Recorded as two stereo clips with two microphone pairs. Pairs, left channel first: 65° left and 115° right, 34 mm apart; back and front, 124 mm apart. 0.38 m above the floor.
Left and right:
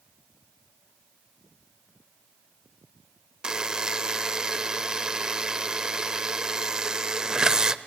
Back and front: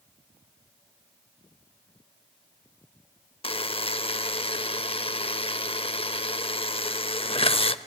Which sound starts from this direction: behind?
A buzzer, at 3.4 s.